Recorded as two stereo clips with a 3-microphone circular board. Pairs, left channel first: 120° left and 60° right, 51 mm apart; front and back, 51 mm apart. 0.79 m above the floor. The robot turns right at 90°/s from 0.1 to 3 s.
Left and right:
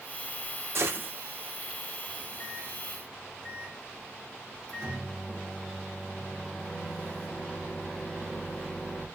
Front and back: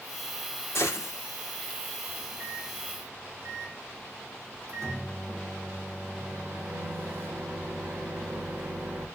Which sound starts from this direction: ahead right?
A gunshot, at 0.8 s.